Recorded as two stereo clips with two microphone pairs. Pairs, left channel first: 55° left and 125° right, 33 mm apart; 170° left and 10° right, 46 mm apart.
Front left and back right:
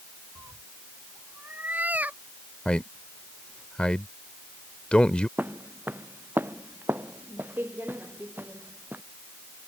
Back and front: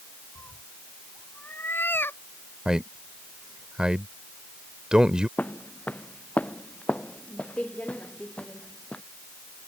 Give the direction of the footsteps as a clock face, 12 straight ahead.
5 o'clock.